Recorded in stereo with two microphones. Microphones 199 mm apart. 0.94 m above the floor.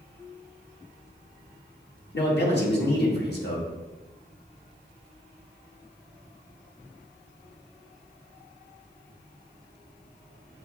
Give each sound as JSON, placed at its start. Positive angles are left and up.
{"t": 2.1, "sound": "a man speaking", "side_deg": 60, "distance_m": 1.5}